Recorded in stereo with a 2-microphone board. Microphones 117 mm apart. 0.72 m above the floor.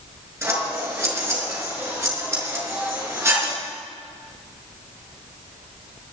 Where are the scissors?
25° right (ahead or behind), 5 m.